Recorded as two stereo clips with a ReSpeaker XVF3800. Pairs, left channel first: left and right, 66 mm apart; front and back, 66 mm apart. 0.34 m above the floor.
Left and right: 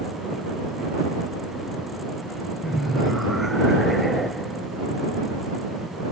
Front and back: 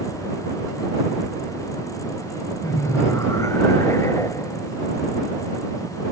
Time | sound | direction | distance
2.6 | laughter | straight ahead | ?